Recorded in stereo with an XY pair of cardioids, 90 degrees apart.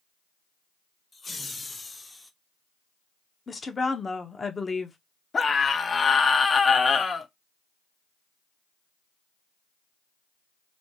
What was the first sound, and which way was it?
Laughter, 35° left.